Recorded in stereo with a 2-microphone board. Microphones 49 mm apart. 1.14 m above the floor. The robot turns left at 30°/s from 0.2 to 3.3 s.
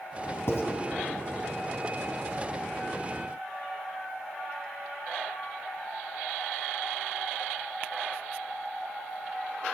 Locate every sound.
0.5 s writing: 70° left (ahead or behind), 2 m